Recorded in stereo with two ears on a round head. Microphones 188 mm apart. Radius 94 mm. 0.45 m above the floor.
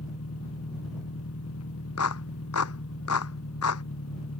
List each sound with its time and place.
0.0 s an engine running: 75° left (ahead or behind)
2.0 s a clap: 80° left